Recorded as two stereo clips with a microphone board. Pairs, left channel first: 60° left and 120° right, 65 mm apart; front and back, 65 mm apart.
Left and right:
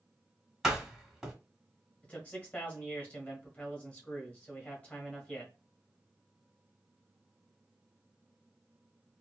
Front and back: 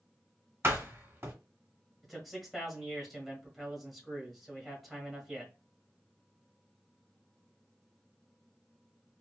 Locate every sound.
0.6 s a door slam: 160° left, 1.0 m
2.0 s a man speaking: 100° left, 1.1 m